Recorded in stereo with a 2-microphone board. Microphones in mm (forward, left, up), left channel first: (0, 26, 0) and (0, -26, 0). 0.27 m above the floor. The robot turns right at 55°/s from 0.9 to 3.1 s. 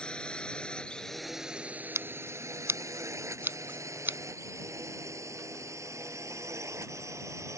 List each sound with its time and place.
0.0 s a drone: 15° left (ahead or behind); by 7.6 s 70° right (ahead or behind)
1.9 s scissors: 60° right (ahead or behind); by 4.2 s 40° right (ahead or behind)